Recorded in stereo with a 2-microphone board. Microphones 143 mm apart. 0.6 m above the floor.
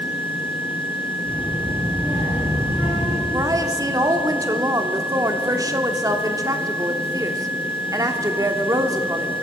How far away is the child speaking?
About 6.5 m.